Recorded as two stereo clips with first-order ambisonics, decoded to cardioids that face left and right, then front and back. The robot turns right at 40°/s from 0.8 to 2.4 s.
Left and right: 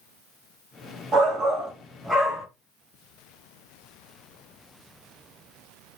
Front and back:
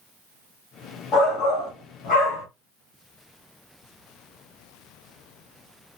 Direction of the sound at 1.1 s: 40° right.